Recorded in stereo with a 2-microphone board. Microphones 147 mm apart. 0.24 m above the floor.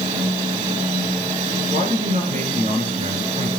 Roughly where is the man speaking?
Right.